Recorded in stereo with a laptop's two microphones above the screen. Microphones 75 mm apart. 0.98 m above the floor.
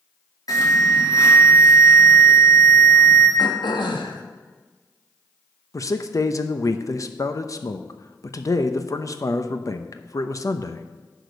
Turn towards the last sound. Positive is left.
turn(degrees=45)  # may be behind; listen again after turning